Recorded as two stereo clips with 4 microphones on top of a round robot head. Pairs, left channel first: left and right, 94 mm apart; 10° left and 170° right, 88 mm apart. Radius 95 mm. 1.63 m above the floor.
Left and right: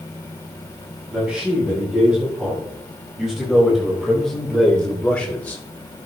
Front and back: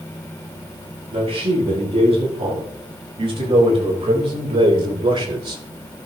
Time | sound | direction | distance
1.1 | a man speaking | 170° right | 7 m